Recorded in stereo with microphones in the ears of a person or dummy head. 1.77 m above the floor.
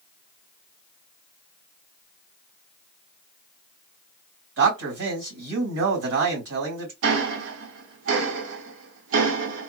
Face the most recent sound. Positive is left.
turn(degrees=-65)  # may be behind; listen again after turning